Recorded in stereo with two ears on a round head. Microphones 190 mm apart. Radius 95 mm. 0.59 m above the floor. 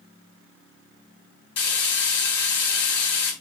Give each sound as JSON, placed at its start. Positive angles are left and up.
{"t": 1.6, "sound": "frying", "side_deg": 55, "distance_m": 3.0}